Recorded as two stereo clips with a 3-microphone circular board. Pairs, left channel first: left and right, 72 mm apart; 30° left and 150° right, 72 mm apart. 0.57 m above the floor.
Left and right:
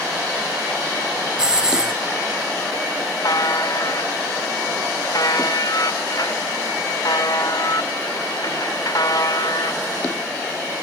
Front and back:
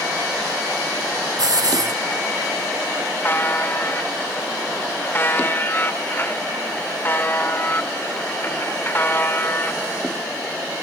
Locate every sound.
1.4 s a hiss: 170° right, 3.5 m
3.2 s a buzzer: 85° left, 1.8 m